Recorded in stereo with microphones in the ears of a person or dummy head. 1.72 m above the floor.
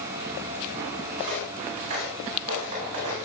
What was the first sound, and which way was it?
Footsteps, 35° right (ahead or behind).